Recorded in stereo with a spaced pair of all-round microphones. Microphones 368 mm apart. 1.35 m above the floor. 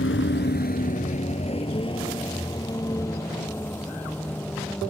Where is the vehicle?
35° left (ahead or behind); by 4.9 s 5° left (ahead or behind).